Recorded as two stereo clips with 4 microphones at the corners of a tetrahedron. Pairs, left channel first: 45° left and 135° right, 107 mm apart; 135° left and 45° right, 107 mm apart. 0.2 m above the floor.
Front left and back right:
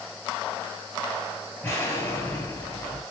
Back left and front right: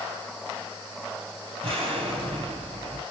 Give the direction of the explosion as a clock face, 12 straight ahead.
1 o'clock.